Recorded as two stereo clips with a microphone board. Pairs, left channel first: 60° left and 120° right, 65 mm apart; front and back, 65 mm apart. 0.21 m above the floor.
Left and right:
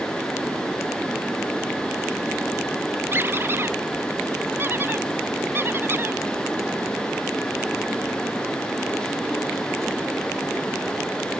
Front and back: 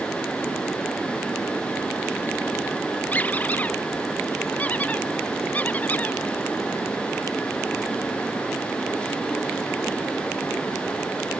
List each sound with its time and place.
3.1 s a squeak: 65° right